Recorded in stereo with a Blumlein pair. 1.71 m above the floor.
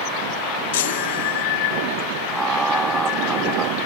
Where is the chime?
55° left.